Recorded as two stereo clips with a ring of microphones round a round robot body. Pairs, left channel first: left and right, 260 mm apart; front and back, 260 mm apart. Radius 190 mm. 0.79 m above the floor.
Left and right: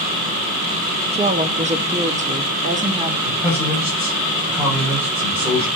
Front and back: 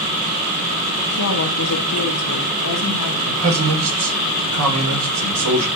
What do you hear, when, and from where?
1.1 s a woman speaking: 25° right, 1.3 m; by 3.2 s 30° right, 2.5 m
3.3 s a man speaking: 175° right, 3.5 m